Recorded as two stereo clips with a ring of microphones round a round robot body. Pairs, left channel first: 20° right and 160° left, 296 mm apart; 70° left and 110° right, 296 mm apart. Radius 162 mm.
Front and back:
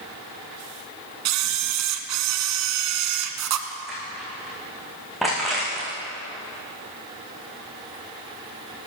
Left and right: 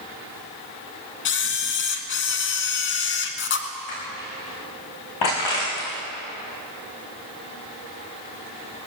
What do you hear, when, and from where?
1.2 s a camera shutter: 120° left, 1.7 m
3.9 s crushing: 70° left, 10 m